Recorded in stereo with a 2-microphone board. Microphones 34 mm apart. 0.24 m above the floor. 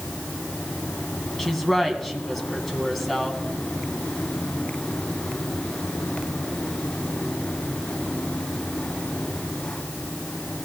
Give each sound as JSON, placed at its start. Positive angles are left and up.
{"t": 1.4, "sound": "a woman speaking", "side_deg": 0, "distance_m": 2.5}